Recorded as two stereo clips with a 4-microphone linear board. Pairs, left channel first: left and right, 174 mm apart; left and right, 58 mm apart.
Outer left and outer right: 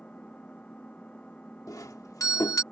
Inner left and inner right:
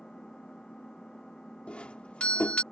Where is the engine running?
5° left (ahead or behind).